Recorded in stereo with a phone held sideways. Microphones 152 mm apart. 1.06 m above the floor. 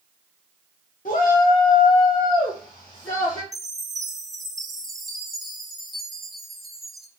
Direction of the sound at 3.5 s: Centre (ahead or behind).